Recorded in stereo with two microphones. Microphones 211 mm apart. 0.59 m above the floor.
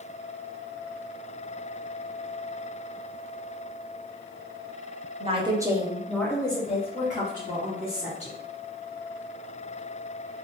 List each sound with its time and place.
5.2 s a woman speaking: 30° right (ahead or behind), 0.8 m; by 8.4 s 55° left (ahead or behind), 1.5 m